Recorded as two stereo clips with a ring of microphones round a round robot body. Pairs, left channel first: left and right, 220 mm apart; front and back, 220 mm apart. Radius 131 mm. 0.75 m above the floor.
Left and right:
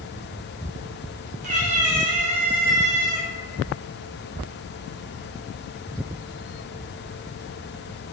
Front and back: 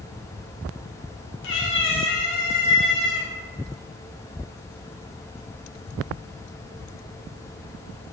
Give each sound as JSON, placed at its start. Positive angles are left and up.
{"t": 1.4, "sound": "a cat meowing", "azimuth_deg": -35, "distance_m": 0.5}